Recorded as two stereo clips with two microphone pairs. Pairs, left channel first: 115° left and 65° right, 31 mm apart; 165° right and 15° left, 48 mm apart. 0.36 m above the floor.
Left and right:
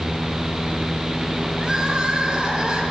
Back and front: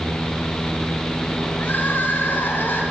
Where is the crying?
120° right, 2.5 m.